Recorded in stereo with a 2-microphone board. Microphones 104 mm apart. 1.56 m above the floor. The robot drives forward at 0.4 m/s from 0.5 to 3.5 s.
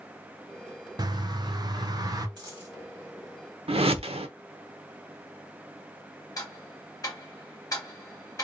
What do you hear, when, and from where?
1.0 s a bird: 40° right (ahead or behind), 0.7 m; by 2.3 s 35° right (ahead or behind), 0.7 m
2.4 s a dropped coin: 45° right (ahead or behind), 1.9 m; by 2.8 s 40° right (ahead or behind), 2.0 m
3.7 s a whoosh: 70° right (ahead or behind), 0.7 m
6.4 s ticking: 35° left (ahead or behind), 1.0 m